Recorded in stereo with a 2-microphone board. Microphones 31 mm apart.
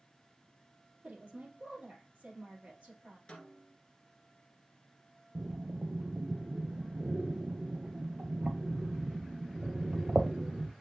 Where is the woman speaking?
55° right (ahead or behind), 3.5 m.